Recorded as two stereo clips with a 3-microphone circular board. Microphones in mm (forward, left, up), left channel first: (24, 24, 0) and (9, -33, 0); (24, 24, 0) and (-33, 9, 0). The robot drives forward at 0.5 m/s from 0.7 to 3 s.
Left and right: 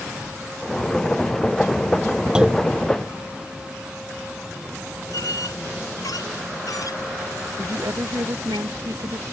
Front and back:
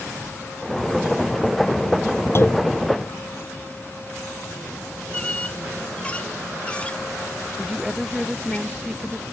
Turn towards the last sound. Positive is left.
turn(degrees=-80)